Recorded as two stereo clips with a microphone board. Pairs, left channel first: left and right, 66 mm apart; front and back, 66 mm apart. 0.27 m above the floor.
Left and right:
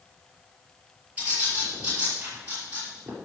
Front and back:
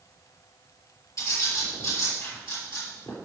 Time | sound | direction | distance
1.2 | a bird | 25° right | 6.5 m